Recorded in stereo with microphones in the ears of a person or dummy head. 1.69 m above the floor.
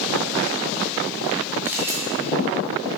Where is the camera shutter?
15° right (ahead or behind), 1.4 m.